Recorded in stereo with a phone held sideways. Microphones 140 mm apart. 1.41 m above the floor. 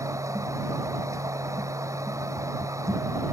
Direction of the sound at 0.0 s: 20° right (ahead or behind).